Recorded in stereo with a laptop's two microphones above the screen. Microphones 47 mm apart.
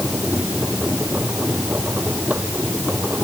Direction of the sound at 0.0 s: 35° right (ahead or behind).